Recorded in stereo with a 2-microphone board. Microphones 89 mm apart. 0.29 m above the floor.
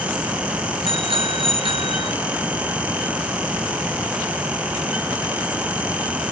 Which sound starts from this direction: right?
A bicycle bell, at 0.9 s.